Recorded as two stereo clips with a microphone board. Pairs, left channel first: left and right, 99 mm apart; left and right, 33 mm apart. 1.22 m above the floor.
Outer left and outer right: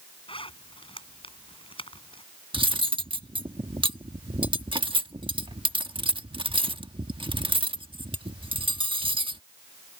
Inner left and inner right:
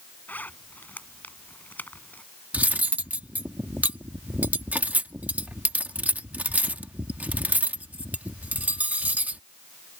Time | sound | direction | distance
0.3 | a zipper | 65° left (ahead or behind) | ?
2.5 | cutlery clinking | 60° right (ahead or behind) | ?